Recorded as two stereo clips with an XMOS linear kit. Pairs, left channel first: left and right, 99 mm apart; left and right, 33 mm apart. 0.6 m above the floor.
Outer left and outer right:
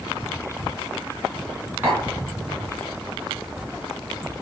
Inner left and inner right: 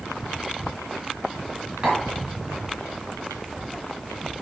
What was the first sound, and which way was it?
Tapping, 20° right (ahead or behind).